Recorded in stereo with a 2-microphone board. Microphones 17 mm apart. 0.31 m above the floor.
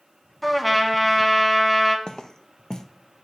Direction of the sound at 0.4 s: Centre (ahead or behind).